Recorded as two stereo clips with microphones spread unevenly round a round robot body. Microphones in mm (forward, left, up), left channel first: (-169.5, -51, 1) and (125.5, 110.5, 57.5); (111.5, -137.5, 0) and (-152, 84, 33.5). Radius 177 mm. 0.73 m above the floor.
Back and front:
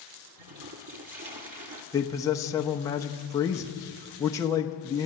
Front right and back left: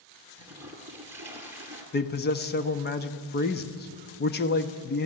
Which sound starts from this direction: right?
A man speaking, at 1.9 s.